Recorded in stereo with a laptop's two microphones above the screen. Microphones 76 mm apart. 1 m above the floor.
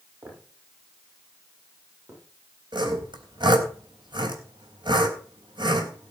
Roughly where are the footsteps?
Right.